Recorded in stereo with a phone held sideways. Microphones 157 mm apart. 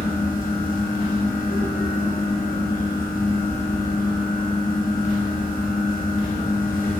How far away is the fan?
About 0.8 m.